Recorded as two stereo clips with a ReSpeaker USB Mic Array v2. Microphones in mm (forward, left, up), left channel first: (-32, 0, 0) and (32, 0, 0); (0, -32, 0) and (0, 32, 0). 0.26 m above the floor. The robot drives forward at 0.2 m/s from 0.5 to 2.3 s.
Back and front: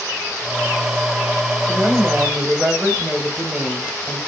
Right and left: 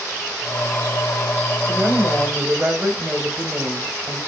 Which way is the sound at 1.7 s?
60° left.